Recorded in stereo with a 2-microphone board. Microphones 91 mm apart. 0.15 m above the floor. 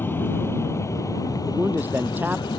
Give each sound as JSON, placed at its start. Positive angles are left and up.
{"t": 0.0, "sound": "an aircraft", "side_deg": 25}
{"t": 1.5, "sound": "a man speaking", "side_deg": -20}